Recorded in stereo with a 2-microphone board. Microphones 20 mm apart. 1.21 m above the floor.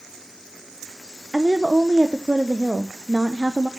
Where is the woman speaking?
50° right (ahead or behind), 0.6 m.